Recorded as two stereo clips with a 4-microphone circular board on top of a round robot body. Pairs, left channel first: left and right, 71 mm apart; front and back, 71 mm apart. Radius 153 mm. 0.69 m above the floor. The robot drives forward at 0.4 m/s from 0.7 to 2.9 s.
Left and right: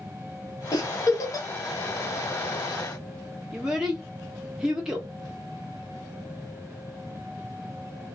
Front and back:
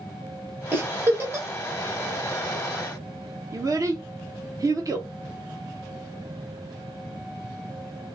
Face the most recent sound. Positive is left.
turn(degrees=-170)